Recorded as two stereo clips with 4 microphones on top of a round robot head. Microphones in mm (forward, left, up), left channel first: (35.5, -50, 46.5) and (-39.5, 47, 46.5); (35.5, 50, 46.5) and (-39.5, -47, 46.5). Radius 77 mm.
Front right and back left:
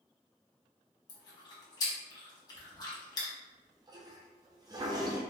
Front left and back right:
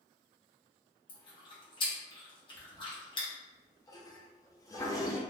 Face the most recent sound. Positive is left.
turn(degrees=95)